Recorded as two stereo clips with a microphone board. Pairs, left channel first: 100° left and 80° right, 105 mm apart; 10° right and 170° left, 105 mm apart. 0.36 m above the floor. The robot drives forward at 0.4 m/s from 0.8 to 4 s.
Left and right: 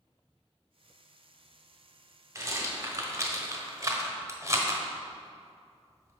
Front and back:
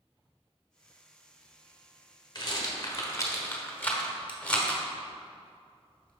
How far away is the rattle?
About 1.4 m.